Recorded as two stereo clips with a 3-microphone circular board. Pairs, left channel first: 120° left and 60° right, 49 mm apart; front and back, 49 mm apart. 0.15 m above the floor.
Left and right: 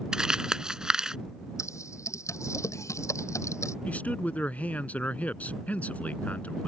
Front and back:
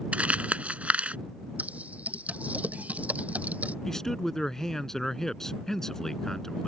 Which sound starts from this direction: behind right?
Crumpling, at 0.1 s.